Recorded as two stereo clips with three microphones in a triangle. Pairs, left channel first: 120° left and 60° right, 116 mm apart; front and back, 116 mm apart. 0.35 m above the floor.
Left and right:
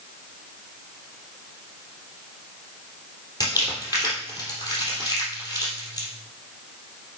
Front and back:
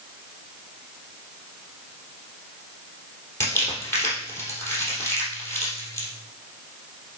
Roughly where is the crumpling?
Ahead left.